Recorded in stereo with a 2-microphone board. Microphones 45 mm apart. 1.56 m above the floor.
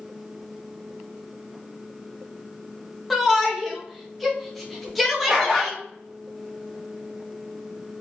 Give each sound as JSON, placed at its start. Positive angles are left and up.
{"t": 3.1, "sound": "a shout", "side_deg": 0, "distance_m": 1.0}
{"t": 5.3, "sound": "a dog barking", "side_deg": -10, "distance_m": 1.1}